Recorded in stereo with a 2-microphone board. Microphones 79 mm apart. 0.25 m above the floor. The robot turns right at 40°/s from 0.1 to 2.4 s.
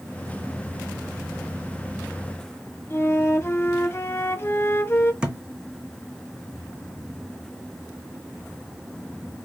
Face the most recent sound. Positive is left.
turn(degrees=-10)  # may be behind; listen again after turning